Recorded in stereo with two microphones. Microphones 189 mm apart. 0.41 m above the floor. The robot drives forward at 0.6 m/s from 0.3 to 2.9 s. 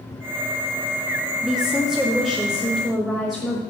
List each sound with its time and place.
1.4 s a woman speaking: 5° right (ahead or behind), 0.7 m; by 3.6 s centre (ahead or behind), 1.4 m